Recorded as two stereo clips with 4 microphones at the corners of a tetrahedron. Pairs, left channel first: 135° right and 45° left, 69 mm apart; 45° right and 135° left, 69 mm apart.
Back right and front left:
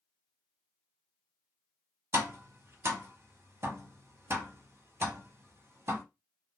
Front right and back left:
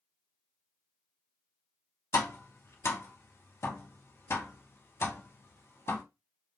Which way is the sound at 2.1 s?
Straight ahead.